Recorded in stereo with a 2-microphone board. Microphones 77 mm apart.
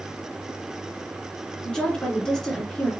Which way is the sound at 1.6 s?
10° left (ahead or behind).